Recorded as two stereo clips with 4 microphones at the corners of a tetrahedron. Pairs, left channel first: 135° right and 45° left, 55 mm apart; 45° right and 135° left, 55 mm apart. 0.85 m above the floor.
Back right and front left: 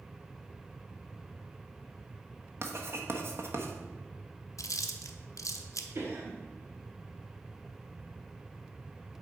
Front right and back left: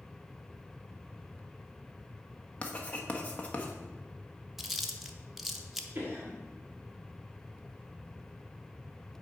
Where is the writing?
15° left, 1.0 m.